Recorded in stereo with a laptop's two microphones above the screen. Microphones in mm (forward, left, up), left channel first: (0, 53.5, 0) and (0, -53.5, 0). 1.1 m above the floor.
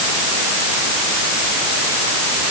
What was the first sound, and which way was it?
Only background noise.